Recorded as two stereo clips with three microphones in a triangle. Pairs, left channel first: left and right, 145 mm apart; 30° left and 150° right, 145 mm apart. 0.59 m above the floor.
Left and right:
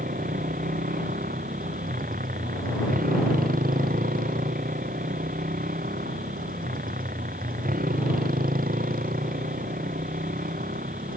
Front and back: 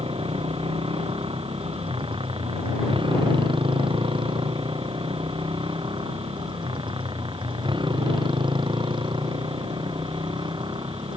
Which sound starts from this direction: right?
A motorcycle, at 0.0 s.